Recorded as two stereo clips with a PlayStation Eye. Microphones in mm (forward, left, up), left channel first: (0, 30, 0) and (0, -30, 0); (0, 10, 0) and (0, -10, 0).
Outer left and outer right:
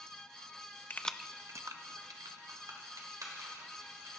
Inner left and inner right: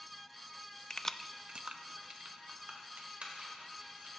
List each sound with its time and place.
0.9 s keys jangling: 35° left (ahead or behind), 0.6 m; by 4.1 s 85° right, 4.5 m